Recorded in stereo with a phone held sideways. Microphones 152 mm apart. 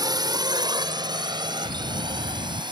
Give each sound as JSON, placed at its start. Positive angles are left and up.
{"t": 0.0, "sound": "a drone", "side_deg": -25}
{"t": 1.6, "sound": "a bell", "side_deg": -65}